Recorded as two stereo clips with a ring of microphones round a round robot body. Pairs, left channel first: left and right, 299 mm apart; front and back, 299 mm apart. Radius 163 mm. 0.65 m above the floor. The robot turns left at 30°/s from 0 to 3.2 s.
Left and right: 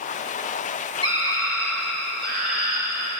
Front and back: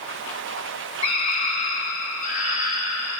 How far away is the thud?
No thud in this recording.